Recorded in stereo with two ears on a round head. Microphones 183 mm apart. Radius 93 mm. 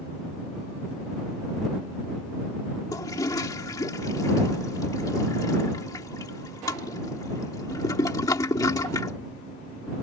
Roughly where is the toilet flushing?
Centre.